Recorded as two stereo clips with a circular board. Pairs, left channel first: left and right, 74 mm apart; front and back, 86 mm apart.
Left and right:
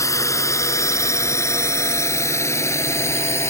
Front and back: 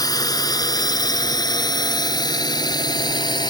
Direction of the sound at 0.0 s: 45° left.